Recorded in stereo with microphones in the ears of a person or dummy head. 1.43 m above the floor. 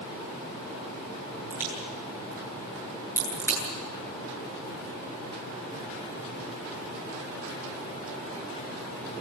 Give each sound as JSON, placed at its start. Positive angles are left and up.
{"t": 1.5, "sound": "a crack", "side_deg": -20, "distance_m": 10.0}